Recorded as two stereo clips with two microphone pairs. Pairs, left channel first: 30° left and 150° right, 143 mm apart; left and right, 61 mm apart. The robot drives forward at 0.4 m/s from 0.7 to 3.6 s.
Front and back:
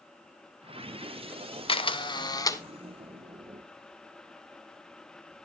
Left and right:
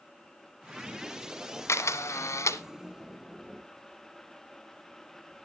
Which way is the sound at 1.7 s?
65° left.